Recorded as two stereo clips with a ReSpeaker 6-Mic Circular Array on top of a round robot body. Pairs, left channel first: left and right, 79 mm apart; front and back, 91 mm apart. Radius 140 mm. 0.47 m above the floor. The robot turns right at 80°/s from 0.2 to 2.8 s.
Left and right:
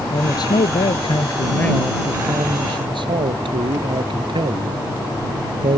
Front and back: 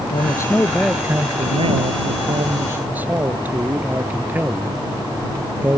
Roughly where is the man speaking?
Ahead left.